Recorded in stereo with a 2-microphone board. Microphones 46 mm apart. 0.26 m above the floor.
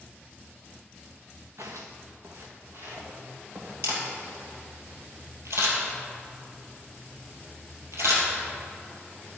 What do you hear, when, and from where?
1.6 s footsteps: 75° right (ahead or behind), 1.1 m; by 3.7 s 50° right (ahead or behind), 4 m
3.8 s a camera shutter: 75° right (ahead or behind), 2.5 m